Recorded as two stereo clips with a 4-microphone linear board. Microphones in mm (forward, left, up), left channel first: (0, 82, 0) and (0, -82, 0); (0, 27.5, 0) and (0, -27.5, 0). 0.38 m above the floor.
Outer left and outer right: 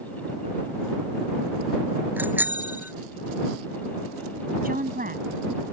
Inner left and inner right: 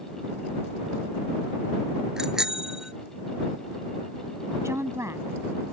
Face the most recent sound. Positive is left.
turn(degrees=-65)  # may be behind; listen again after turning